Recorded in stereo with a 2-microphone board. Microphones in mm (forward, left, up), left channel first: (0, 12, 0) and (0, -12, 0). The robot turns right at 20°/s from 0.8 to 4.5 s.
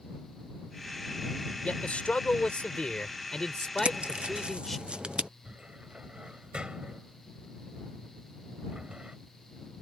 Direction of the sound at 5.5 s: 40° right (ahead or behind).